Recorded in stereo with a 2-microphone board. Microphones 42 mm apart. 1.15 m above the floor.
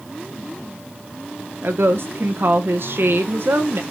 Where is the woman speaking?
65° right (ahead or behind), 1.0 m.